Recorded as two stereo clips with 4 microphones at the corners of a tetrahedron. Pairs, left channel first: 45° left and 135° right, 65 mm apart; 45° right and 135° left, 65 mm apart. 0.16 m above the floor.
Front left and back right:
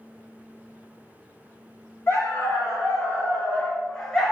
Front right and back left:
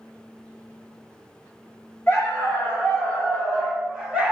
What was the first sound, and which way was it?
A dog barking, 10° left.